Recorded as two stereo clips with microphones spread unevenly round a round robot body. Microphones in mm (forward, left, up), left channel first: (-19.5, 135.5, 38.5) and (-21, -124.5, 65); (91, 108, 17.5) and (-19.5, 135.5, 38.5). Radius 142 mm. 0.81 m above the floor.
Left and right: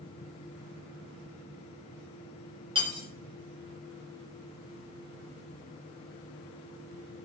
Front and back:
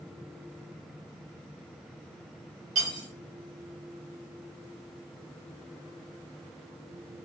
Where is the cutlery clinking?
160° right, 0.9 m.